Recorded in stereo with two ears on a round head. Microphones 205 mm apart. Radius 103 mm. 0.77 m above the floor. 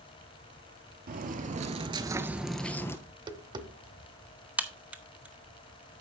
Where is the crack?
5° right (ahead or behind), 0.9 m.